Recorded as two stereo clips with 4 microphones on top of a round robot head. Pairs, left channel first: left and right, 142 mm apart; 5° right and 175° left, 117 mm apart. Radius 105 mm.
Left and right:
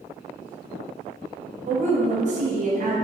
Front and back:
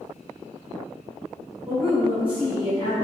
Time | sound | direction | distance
1.7 | a woman speaking | 130° right | 0.6 m